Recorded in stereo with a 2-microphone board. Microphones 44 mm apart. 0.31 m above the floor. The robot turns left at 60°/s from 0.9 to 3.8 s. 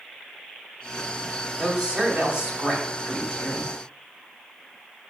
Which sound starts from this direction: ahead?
A woman speaking, at 1.6 s.